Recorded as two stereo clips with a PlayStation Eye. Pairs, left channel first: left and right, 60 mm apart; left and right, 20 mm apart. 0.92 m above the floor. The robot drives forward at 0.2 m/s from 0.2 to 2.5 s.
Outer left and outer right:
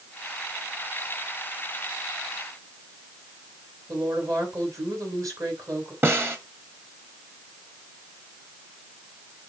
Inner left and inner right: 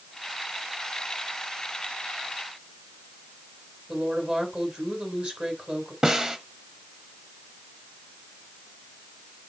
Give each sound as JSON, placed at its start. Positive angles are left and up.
{"t": 3.9, "sound": "a woman speaking", "side_deg": -65, "distance_m": 4.0}
{"t": 6.0, "sound": "a snare drum", "side_deg": -40, "distance_m": 1.5}